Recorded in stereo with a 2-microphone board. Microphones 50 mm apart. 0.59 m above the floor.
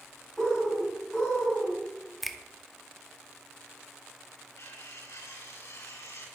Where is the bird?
Centre (ahead or behind), 5.5 m.